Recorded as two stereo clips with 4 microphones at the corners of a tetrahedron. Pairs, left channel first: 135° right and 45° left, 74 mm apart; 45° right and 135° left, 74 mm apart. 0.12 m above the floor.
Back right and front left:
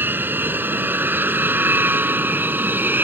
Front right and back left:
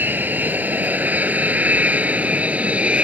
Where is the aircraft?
90° left; by 3.0 s 80° left.